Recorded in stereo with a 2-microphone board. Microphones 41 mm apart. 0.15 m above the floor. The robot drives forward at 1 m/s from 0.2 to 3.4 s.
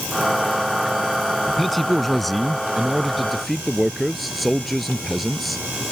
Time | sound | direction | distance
1.5 | a man speaking | 5° left (ahead or behind) | ?